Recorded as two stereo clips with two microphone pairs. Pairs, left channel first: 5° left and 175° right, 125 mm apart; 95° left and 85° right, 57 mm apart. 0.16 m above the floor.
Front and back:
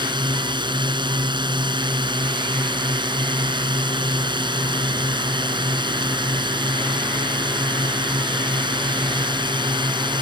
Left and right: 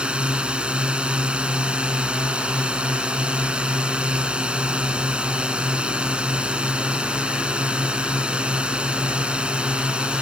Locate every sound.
0.0 s a drone: 150° right